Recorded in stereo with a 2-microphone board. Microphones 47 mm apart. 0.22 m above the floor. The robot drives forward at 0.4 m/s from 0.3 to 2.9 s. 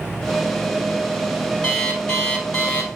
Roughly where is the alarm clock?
Centre.